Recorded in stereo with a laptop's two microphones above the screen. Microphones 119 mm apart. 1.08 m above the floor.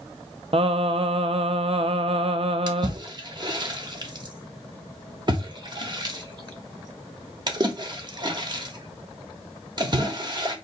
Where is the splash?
35° right (ahead or behind), 0.9 m.